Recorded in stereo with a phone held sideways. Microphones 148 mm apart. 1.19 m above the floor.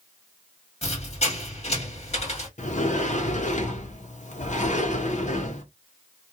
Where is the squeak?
45° left (ahead or behind), 1.5 m.